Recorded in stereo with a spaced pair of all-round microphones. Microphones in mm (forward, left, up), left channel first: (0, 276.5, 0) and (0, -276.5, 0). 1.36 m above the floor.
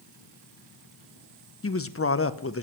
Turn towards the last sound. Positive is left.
turn(degrees=25)  # may be behind; listen again after turning